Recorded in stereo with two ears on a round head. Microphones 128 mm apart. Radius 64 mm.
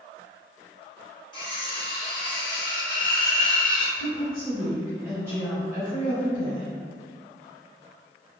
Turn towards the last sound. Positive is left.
turn(degrees=-20)  # may be behind; listen again after turning